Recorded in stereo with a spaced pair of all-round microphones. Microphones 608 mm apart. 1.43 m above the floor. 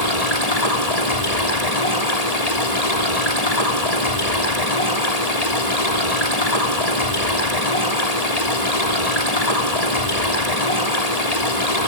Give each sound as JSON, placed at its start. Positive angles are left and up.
{"t": 0.0, "sound": "running water", "side_deg": 85, "distance_m": 3.5}